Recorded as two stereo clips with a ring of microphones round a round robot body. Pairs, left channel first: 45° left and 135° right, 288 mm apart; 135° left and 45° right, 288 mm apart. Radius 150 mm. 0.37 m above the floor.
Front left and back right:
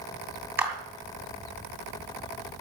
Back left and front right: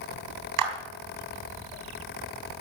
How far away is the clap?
About 3 m.